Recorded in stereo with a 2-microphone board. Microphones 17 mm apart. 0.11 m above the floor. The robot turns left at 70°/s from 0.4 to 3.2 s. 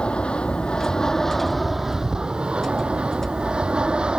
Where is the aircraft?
65° left (ahead or behind); by 4.2 s 55° right (ahead or behind).